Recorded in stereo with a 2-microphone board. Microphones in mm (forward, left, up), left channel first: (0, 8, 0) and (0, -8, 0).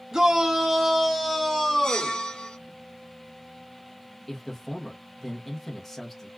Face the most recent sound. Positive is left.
turn(degrees=15)  # may be behind; listen again after turning